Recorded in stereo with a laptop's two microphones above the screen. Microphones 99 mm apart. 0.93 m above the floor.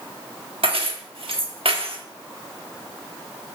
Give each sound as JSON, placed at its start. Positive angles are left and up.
{"t": 0.6, "sound": "keys jangling", "side_deg": -70, "distance_m": 1.3}